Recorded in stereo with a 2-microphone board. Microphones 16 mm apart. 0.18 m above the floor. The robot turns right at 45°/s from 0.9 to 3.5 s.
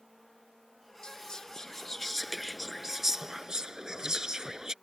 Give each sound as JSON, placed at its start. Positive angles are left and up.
{"t": 1.0, "sound": "whispering", "azimuth_deg": 115}